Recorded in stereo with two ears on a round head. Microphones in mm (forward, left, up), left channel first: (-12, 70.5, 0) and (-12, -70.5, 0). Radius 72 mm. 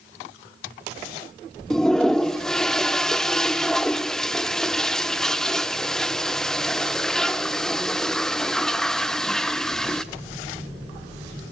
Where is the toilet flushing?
5° left (ahead or behind), 0.7 m.